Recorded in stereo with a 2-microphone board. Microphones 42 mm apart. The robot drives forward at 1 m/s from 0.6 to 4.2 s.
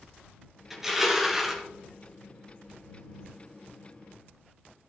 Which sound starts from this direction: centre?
Crushing, at 0.7 s.